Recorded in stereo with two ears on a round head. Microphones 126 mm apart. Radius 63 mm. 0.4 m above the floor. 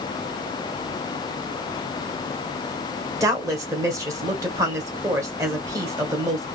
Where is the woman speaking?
25° right (ahead or behind), 1.7 m.